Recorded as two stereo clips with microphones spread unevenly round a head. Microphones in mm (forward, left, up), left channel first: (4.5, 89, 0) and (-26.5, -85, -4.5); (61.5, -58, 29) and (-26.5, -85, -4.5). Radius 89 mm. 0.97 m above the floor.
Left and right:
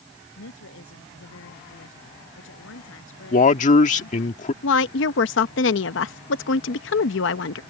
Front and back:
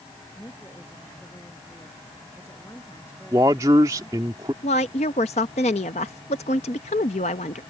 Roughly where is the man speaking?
Behind left.